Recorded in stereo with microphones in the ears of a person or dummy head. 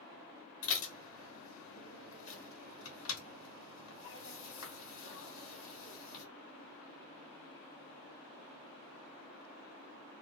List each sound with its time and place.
0.6 s dishes clattering: 65° left (ahead or behind), 1.2 m